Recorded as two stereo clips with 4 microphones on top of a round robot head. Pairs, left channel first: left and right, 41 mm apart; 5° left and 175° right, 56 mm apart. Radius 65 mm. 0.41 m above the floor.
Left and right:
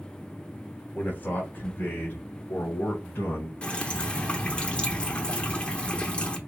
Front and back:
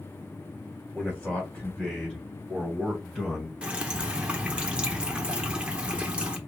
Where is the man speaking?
70° left, 1.8 m; by 3.5 s 95° left, 3 m.